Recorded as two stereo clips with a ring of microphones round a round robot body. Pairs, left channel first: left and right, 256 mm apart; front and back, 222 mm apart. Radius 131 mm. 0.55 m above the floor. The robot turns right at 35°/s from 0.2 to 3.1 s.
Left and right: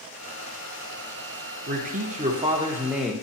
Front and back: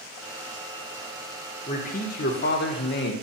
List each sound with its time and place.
1.7 s a man speaking: 50° right, 1.0 m; by 3.1 s straight ahead, 1.0 m